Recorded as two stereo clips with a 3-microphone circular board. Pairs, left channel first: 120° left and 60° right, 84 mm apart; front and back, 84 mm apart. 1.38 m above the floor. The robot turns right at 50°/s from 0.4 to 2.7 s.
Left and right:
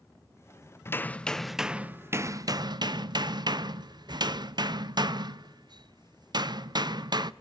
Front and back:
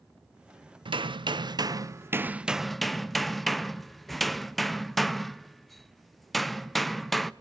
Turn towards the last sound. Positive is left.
turn(degrees=-90)